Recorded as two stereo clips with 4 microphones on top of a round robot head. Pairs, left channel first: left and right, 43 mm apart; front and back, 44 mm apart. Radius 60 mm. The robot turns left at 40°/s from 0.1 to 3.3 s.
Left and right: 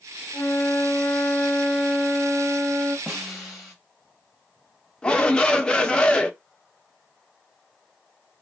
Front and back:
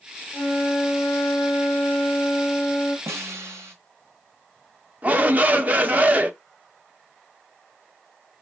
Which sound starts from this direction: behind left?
A shout, at 5.0 s.